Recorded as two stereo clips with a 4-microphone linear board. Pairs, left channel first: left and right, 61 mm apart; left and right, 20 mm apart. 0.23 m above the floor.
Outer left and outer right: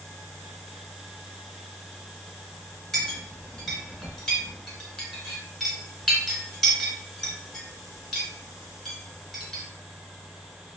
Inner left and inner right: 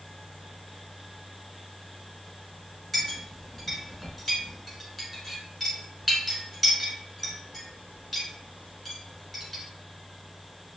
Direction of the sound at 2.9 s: 10° left (ahead or behind).